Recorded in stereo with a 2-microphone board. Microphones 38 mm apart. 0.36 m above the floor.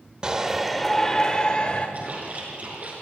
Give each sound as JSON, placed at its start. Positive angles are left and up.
{"t": 0.2, "sound": "a shout", "side_deg": -25, "distance_m": 1.2}
{"t": 1.9, "sound": "a splash", "side_deg": -45, "distance_m": 5.5}